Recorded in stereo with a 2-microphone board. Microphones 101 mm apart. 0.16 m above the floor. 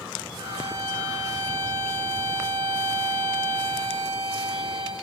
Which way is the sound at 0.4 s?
85° right.